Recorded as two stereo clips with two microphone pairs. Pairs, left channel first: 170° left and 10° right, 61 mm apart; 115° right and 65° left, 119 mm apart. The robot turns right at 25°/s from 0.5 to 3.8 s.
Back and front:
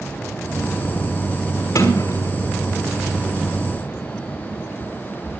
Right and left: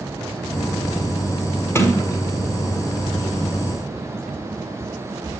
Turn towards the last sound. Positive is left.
turn(degrees=-135)